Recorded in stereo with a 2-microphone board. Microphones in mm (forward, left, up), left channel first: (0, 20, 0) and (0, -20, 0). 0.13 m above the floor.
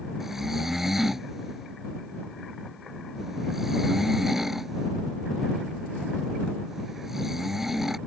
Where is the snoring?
10° right (ahead or behind).